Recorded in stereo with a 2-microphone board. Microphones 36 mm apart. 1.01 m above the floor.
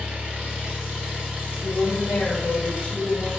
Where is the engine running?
40° right (ahead or behind), 1.0 m.